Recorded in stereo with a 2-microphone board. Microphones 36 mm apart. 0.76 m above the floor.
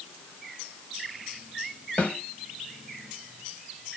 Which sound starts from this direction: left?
A snare drum, at 2.0 s.